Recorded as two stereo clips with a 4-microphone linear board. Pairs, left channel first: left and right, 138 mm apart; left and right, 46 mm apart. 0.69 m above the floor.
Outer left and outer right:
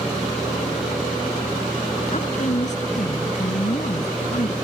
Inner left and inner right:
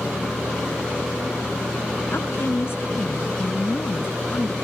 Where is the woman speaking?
60° left (ahead or behind); by 4.5 s 45° left (ahead or behind).